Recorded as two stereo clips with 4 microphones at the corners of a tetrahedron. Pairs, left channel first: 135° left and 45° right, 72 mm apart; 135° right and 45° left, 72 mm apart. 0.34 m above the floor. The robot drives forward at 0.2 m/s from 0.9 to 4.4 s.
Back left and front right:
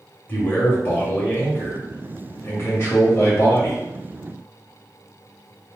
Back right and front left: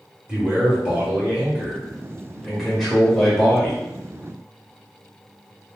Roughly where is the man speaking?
Left.